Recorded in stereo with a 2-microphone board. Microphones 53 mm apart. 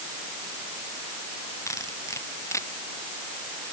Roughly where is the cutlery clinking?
Left.